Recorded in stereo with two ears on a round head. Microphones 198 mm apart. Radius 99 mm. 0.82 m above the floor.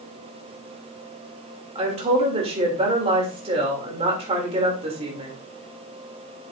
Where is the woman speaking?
25° right (ahead or behind), 3 m.